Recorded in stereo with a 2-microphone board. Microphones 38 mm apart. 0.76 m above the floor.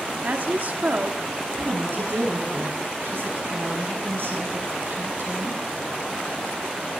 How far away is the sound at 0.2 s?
About 1.5 m.